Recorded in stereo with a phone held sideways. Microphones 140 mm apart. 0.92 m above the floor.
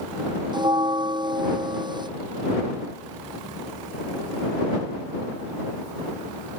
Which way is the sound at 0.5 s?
35° right (ahead or behind).